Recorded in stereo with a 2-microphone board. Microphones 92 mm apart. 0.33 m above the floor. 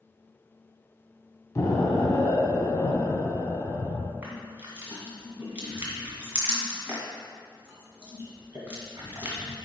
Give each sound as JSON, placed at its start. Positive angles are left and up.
{"t": 1.6, "sound": "an explosion", "side_deg": 30, "distance_m": 1.1}
{"t": 4.2, "sound": "crushing", "side_deg": -20, "distance_m": 2.0}